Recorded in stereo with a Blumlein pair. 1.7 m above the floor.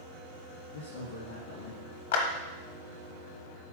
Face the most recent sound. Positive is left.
turn(degrees=60)